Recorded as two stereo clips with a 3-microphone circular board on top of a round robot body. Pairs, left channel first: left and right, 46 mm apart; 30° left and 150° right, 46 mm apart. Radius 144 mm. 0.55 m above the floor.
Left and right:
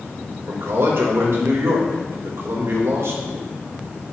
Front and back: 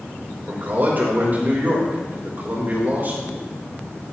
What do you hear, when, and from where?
0.5 s a man speaking: 105° right, 3 m